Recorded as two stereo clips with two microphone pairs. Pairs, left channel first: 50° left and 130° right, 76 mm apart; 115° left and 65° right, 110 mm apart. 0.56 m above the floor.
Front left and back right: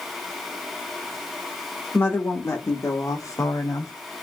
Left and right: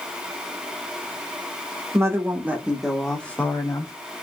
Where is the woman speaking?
5° right, 1.8 m; by 3.9 s 70° left, 1.3 m.